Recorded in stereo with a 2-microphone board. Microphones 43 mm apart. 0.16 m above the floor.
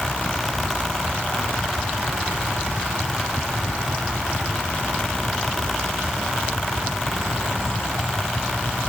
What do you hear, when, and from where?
Only background noise.